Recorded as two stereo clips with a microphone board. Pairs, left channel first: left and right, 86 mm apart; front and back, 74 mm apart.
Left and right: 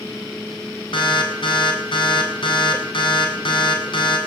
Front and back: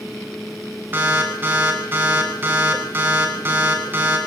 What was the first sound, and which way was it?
An alarm, 115° left.